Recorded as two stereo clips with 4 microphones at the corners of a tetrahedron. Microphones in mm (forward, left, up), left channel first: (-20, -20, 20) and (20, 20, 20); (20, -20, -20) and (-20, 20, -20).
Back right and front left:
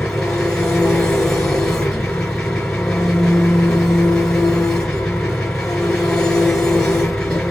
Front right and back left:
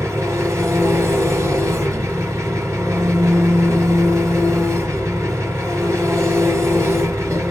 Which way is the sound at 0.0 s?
150° left.